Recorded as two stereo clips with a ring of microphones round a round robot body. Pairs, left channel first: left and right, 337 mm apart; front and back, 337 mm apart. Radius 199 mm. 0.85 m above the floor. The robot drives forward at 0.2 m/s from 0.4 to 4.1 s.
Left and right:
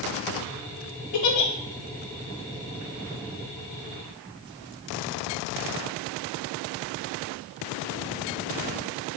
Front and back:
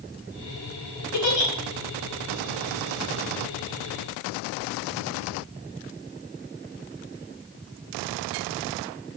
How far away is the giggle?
About 0.7 m.